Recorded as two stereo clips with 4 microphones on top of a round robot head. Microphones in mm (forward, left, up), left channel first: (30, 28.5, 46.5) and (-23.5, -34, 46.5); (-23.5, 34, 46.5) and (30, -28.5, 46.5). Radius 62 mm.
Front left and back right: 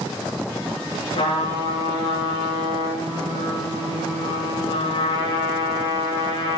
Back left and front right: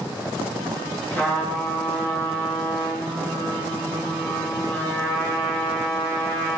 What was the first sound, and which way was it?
A trumpet, 60° left.